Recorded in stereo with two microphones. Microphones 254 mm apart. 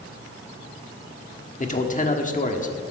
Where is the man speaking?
30° left (ahead or behind), 1.2 m.